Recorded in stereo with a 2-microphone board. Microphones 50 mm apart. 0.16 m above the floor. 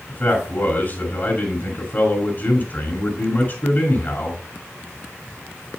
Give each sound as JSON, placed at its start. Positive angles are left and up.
{"t": 0.1, "sound": "a man speaking", "side_deg": 40, "distance_m": 2.0}